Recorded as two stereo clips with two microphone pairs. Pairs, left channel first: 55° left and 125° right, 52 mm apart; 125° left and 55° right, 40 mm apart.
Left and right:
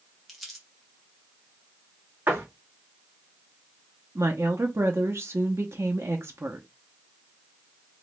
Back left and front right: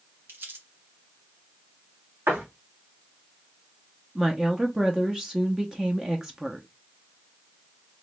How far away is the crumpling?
About 1.5 m.